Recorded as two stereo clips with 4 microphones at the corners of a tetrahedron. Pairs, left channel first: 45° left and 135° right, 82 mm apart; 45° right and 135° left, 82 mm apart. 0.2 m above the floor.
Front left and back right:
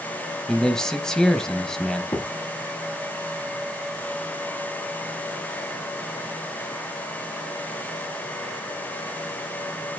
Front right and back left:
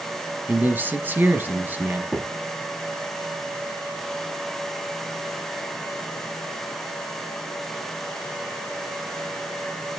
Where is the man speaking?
115° left, 1.0 m.